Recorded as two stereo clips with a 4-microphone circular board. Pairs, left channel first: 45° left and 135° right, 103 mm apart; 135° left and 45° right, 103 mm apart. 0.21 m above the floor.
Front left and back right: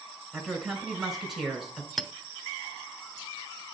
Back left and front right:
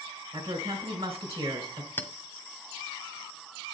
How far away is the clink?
About 0.6 m.